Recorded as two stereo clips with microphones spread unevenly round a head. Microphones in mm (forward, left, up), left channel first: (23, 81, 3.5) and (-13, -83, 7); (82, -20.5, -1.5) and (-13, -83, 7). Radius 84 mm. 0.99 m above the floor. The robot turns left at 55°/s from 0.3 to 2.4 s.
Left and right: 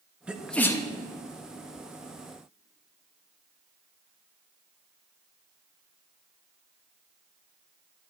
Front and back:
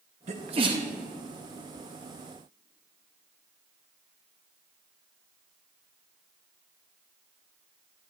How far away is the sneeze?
About 1.5 m.